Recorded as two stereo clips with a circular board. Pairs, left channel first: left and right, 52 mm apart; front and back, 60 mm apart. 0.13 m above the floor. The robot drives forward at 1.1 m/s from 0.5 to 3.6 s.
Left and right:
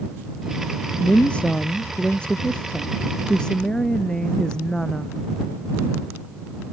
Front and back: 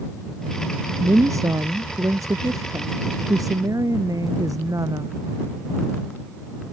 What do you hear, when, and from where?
1.0 s a woman speaking: 155° left; by 5.2 s 165° left